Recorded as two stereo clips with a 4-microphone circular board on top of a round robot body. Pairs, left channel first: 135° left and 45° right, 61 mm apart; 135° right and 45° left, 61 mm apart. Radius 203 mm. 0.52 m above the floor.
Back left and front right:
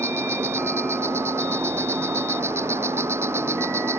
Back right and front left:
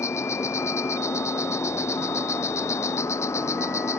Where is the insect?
95° right.